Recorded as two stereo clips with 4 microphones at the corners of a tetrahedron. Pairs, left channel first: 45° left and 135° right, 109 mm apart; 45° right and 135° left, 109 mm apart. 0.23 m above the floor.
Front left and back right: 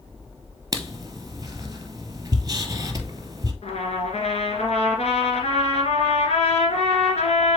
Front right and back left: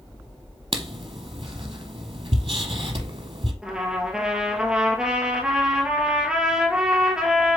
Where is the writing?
165° left, 0.9 m.